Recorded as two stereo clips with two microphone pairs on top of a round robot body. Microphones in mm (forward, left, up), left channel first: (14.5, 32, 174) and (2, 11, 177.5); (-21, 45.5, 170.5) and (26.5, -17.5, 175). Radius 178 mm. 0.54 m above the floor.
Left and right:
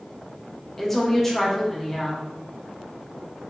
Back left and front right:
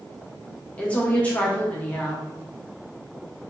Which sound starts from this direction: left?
A woman speaking, at 0.8 s.